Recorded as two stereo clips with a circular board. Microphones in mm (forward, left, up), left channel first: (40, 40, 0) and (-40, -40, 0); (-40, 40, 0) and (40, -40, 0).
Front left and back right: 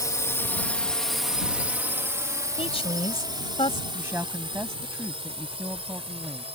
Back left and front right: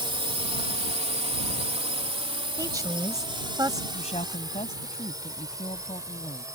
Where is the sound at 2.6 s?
15° left.